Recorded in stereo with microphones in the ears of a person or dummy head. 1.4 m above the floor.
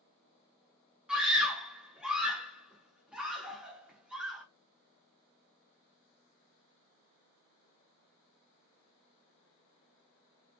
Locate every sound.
1.1 s a scream: 5° right (ahead or behind), 1.0 m